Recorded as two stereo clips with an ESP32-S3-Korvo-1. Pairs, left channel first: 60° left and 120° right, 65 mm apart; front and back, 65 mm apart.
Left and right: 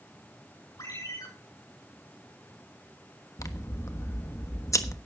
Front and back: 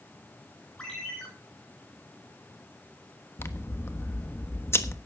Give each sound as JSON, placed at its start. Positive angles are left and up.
{"t": 0.8, "sound": "a ringtone", "azimuth_deg": 75, "distance_m": 8.5}
{"t": 3.4, "sound": "scissors", "azimuth_deg": 40, "distance_m": 1.2}